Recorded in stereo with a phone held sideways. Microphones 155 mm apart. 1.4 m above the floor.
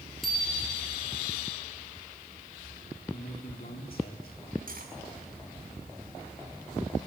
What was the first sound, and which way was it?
A bicycle bell, centre (ahead or behind).